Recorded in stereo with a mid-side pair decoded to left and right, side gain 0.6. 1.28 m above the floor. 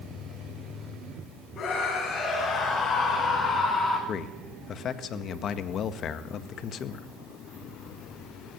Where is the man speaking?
50° left, 1.7 m.